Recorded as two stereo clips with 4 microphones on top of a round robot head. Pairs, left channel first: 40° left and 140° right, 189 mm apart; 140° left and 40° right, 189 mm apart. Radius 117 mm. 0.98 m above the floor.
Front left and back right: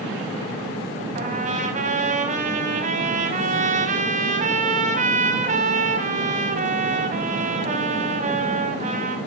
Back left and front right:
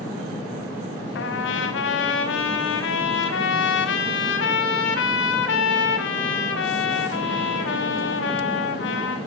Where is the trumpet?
170° left, 3.5 m.